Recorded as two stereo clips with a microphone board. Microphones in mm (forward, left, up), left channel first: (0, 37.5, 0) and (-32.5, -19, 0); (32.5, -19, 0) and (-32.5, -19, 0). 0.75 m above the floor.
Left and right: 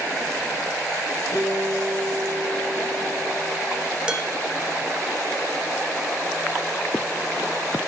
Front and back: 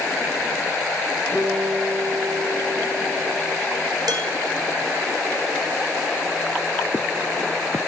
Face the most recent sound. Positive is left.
turn(degrees=165)